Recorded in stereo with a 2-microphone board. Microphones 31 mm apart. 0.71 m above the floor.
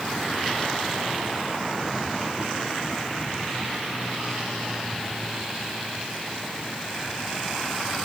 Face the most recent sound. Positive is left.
No sound to turn to.